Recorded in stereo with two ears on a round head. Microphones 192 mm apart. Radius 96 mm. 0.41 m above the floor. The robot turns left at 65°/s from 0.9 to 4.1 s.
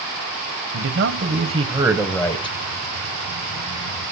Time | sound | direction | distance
0.7 | a man speaking | 105° right | 2 m